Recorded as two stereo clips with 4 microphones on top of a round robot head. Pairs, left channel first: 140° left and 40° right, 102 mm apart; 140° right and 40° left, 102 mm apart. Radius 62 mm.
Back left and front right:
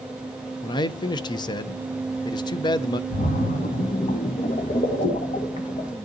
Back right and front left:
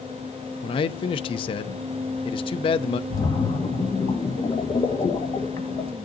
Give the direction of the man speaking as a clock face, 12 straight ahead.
6 o'clock.